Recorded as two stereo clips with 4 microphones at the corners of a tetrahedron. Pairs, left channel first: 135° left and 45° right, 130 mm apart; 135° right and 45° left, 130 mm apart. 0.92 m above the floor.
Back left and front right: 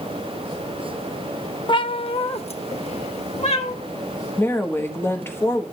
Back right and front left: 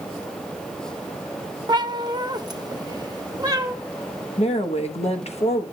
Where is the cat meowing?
90° left, 0.5 m; by 3.8 s 105° left, 1.5 m.